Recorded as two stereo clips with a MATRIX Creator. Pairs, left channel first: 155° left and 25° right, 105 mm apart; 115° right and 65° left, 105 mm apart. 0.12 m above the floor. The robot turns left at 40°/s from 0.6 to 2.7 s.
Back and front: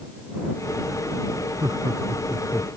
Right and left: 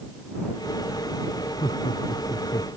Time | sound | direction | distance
1.6 | laughter | 80° right | ?